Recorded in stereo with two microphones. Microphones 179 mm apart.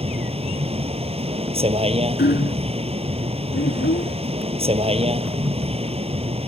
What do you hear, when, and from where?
0.0 s a vehicle: 35° right (ahead or behind)
2.2 s hammering: 70° left (ahead or behind)
3.5 s a child speaking: 75° left (ahead or behind)